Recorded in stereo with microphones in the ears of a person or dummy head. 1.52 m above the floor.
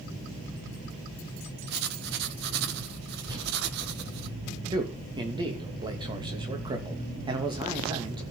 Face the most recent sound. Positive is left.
turn(degrees=-25)  # may be behind; listen again after turning